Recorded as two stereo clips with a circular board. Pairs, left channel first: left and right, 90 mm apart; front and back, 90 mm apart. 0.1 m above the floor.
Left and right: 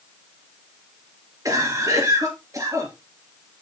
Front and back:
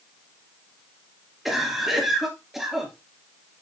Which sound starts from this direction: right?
A cough, at 1.4 s.